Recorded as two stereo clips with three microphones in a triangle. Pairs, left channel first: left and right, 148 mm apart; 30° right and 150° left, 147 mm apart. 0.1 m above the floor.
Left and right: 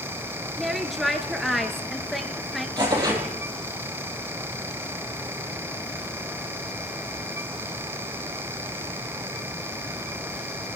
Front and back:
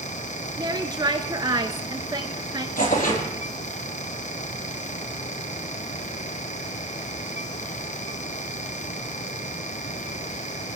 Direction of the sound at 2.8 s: 30° right.